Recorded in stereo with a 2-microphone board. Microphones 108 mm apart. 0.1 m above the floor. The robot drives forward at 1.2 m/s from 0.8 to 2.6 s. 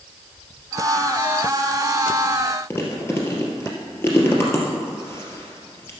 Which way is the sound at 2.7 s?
25° left (ahead or behind).